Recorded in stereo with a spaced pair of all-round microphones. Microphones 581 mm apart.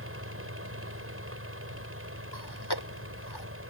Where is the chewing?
40° left (ahead or behind).